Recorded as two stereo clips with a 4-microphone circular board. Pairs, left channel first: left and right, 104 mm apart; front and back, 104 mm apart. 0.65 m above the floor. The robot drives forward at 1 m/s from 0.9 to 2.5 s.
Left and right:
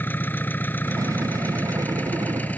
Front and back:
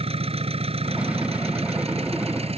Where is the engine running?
160° left; by 2.6 s 165° left.